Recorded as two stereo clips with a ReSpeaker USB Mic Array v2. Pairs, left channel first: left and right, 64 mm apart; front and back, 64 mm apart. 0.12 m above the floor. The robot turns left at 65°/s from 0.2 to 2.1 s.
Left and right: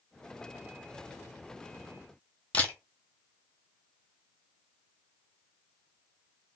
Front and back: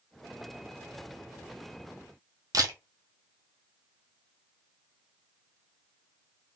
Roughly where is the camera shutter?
Behind left.